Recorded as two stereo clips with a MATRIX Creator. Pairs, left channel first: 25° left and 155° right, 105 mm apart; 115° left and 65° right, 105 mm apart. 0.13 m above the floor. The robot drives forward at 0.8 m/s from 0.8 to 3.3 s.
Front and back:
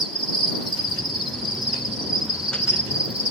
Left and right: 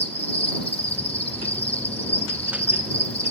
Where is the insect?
110° left, 8 m; by 3.3 s 125° left, 9 m.